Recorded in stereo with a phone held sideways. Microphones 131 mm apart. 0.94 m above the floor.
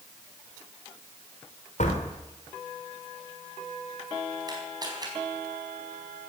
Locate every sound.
1.8 s a door slam: 70° left (ahead or behind), 3 m
4.5 s a camera shutter: 30° right (ahead or behind), 4 m